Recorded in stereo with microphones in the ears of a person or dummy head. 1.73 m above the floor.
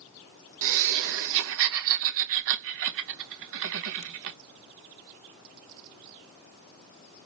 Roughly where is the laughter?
Right.